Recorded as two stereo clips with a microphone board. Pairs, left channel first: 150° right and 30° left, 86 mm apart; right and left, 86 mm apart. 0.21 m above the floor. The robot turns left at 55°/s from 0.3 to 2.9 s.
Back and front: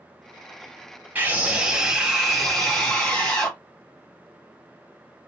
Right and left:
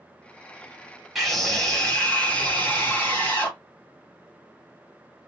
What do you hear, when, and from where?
1.1 s a scream: 5° left, 1.7 m; by 3.6 s 90° right, 1.7 m